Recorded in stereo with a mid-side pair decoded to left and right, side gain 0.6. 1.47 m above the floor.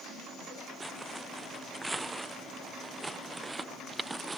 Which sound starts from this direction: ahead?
Footsteps, at 0.8 s.